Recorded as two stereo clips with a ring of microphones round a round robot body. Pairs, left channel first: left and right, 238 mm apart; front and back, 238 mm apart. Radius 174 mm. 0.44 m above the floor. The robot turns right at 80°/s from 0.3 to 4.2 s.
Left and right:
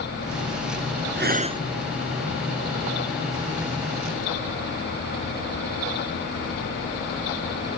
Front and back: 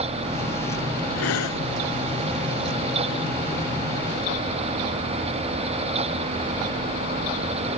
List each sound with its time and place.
1.2 s breathing: 50° right; by 1.6 s 15° right